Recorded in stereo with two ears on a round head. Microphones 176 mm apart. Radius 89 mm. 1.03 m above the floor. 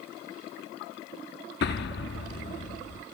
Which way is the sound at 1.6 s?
55° left (ahead or behind).